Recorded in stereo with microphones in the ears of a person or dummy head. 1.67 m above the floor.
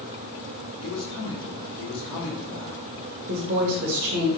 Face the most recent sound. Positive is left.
turn(degrees=-50)  # may be behind; listen again after turning